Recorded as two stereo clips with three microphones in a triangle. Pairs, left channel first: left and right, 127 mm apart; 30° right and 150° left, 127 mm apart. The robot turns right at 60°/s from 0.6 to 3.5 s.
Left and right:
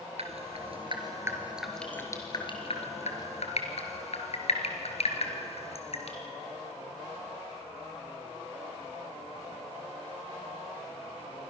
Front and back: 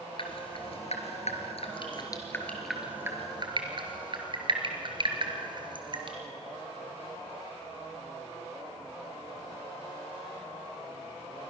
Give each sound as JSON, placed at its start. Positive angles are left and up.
{"t": 0.2, "sound": "dripping", "azimuth_deg": -65, "distance_m": 3.0}